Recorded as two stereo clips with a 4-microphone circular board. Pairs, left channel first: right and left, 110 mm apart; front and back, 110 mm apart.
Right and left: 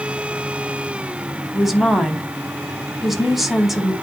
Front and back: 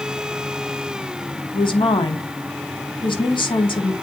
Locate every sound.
1.5 s a woman speaking: 5° left, 1.3 m